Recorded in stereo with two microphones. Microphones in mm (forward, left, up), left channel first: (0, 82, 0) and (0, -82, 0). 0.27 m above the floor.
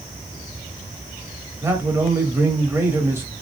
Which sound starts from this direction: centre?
A man speaking, at 1.6 s.